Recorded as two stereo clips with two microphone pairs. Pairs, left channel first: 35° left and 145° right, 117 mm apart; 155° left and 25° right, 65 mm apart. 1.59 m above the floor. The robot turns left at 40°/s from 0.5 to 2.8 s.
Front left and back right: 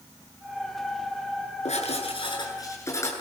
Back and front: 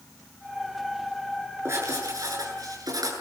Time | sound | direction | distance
1.6 | writing | 15° left | 8.5 m